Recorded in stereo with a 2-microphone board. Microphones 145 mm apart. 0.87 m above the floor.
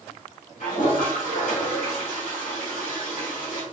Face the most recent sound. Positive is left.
turn(degrees=70)  # may be behind; listen again after turning